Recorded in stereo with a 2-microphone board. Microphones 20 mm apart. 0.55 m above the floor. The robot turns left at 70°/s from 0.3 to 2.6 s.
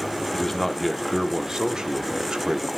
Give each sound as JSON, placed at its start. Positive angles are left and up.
{"t": 0.3, "sound": "a man speaking", "azimuth_deg": 30, "distance_m": 0.9}